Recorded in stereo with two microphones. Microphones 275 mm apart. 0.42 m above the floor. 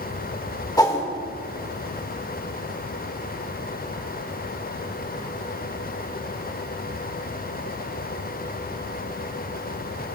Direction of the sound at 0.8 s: 15° left (ahead or behind).